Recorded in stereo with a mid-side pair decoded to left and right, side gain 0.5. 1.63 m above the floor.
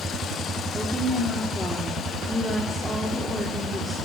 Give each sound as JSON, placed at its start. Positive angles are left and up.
{"t": 0.7, "sound": "a woman speaking", "azimuth_deg": 5, "distance_m": 4.0}